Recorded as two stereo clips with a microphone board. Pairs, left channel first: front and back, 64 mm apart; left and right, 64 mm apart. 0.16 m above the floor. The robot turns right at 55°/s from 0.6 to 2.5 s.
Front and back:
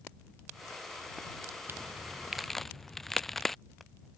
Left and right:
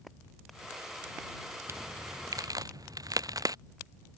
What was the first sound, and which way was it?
A crack, 130° right.